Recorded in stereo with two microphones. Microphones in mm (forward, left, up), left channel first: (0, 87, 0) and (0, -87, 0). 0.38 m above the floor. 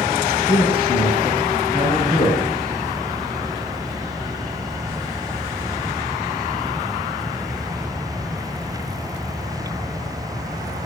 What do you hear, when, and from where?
0.5 s a man speaking: 30° left (ahead or behind), 4.5 m